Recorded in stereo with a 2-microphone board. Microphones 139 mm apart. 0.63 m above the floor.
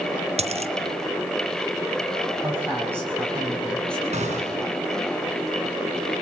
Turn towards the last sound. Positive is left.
turn(degrees=-50)  # may be behind; listen again after turning